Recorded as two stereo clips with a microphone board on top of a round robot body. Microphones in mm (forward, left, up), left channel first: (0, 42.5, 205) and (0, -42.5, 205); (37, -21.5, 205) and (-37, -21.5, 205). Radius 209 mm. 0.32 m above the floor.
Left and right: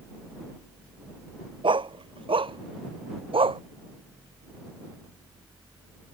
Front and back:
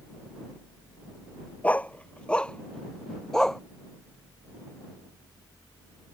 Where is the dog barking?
70° right; by 3.6 s 85° right.